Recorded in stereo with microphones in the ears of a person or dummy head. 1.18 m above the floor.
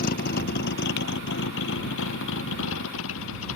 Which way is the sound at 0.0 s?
50° left (ahead or behind).